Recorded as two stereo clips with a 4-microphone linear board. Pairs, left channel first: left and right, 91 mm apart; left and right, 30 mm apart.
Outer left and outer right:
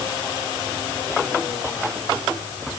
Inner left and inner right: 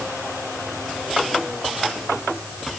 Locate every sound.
Only background noise.